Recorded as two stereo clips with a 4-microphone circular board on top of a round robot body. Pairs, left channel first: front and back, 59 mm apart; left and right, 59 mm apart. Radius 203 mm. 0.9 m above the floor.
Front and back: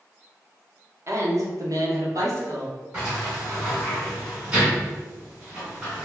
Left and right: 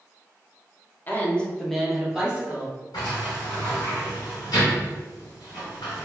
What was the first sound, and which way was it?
A woman speaking, 145° left.